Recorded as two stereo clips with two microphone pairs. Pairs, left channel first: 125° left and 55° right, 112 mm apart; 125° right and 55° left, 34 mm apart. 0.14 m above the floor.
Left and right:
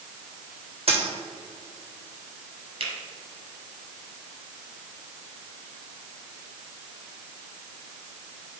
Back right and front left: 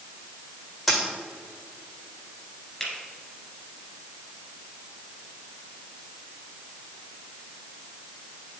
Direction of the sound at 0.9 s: 30° right.